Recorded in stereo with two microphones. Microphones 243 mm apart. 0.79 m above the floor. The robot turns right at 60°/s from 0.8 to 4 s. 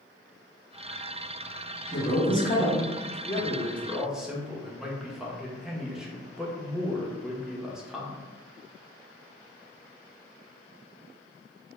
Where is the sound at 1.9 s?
100° left, 1.3 m; by 3.1 s 175° left, 1.3 m.